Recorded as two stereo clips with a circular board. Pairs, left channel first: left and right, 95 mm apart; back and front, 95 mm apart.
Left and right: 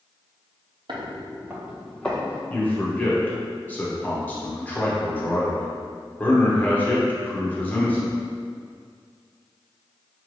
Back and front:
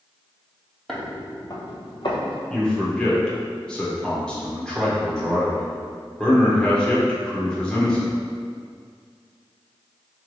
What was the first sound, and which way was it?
Footsteps, 90° right.